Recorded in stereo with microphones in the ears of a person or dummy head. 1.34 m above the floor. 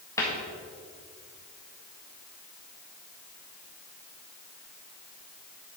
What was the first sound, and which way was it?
A cupboard door, 15° left (ahead or behind).